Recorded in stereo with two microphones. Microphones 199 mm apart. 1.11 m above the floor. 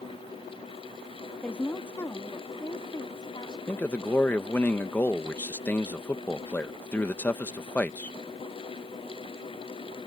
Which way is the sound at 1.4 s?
5° left (ahead or behind).